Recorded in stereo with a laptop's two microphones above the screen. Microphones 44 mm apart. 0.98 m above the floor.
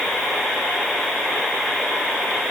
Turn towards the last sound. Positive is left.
No sound to turn to.